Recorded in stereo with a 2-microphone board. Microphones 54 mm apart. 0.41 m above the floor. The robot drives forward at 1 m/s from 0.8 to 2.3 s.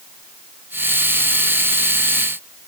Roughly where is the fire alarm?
No fire alarm in this recording.